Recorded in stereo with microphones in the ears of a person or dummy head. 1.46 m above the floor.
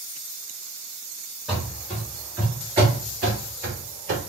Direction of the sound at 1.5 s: Centre (ahead or behind).